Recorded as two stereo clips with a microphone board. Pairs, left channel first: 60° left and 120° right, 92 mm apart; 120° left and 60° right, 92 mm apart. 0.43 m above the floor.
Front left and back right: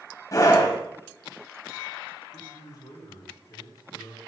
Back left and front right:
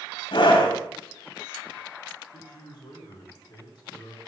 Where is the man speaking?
95° left, 4 m.